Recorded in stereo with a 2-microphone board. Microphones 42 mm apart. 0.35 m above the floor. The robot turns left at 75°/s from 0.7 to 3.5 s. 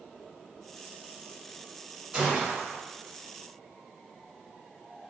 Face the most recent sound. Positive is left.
turn(degrees=-120)